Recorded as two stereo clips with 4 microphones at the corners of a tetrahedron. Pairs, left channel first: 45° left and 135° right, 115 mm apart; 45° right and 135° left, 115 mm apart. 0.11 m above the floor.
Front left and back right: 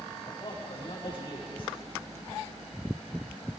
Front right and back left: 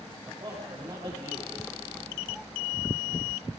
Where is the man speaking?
90° left, 7.5 m.